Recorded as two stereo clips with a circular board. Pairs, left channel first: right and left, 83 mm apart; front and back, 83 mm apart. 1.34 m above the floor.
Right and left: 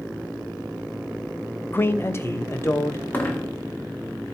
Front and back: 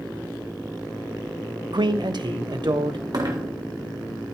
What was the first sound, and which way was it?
A man speaking, 155° right.